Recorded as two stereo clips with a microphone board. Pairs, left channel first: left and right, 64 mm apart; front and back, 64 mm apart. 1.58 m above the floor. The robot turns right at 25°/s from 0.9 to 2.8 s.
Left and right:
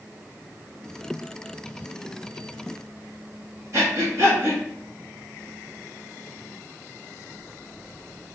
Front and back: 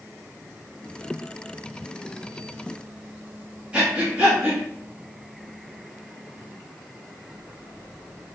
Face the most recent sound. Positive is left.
turn(degrees=-110)